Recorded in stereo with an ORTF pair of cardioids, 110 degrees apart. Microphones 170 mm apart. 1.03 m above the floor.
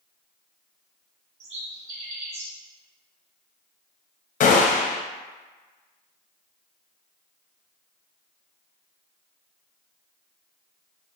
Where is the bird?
40° right, 1.2 m.